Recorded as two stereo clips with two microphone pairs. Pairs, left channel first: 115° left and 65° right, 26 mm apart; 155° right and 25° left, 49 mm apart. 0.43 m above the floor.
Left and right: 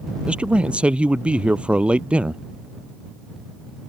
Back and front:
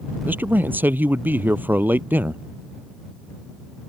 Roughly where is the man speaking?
Ahead right.